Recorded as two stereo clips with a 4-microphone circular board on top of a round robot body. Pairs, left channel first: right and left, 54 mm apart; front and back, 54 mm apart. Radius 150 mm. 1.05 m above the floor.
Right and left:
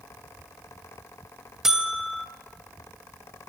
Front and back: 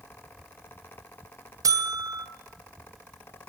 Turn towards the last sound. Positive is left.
turn(degrees=170)